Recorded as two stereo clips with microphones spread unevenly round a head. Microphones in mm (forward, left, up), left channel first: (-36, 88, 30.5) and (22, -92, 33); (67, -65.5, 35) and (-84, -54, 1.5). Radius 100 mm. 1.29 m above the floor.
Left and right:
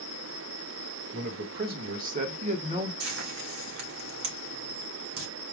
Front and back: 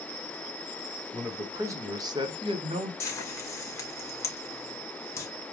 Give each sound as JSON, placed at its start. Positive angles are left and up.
{"t": 1.1, "sound": "a man speaking", "azimuth_deg": -110, "distance_m": 1.9}
{"t": 3.0, "sound": "frying", "azimuth_deg": -75, "distance_m": 2.5}